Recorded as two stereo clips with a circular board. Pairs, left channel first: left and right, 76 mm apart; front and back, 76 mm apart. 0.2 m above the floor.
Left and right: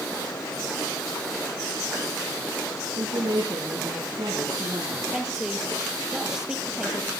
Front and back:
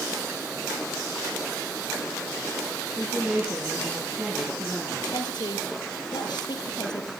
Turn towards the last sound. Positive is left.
turn(degrees=-10)